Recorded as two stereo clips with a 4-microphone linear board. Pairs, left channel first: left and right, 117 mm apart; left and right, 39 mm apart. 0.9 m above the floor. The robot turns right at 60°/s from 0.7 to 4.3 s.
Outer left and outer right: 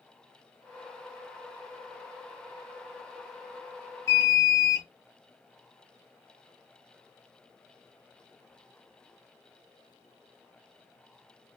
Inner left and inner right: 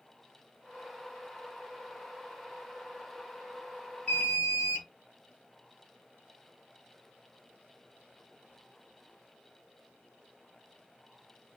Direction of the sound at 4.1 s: 30° left (ahead or behind).